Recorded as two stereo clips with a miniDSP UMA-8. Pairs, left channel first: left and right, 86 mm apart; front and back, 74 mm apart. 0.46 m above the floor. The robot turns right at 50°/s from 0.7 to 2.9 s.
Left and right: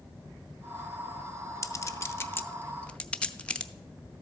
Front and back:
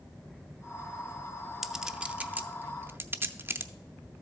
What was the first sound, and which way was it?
A clink, 95° left.